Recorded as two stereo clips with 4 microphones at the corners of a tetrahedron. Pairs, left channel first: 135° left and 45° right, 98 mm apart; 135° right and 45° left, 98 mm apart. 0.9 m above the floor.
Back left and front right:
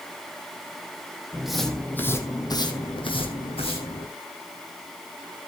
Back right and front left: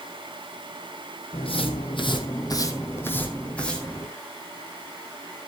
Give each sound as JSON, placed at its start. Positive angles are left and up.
{"t": 1.3, "sound": "footsteps", "azimuth_deg": -125, "distance_m": 2.5}